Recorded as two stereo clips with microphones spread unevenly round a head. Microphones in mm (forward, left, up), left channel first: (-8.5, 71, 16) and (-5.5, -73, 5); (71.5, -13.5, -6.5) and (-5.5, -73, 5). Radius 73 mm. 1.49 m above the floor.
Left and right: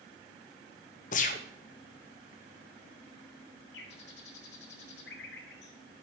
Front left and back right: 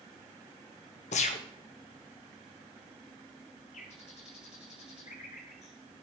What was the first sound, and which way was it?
A gunshot, 55° left.